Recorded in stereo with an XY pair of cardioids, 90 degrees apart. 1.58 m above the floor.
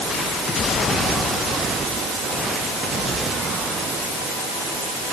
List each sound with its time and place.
Only background noise.